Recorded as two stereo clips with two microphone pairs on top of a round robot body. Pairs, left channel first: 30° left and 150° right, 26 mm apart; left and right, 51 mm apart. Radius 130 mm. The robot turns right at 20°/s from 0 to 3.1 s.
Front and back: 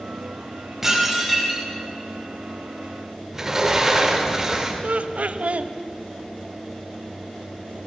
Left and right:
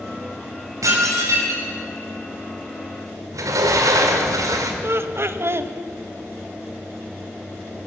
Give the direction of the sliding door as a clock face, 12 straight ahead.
3 o'clock.